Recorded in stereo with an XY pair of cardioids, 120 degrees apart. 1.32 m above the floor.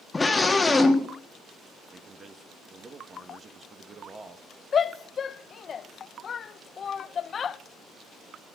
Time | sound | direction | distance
0.1 | a scream | 20° left | 2 m
1.9 | a man speaking | 35° right | 1.8 m
4.7 | a shout | 40° left | 0.8 m